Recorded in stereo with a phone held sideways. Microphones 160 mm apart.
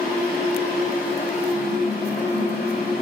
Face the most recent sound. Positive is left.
turn(degrees=70)  # may be behind; listen again after turning